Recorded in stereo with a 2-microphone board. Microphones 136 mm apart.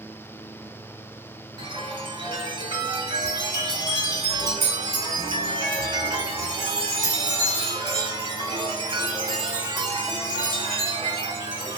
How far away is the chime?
About 1.2 m.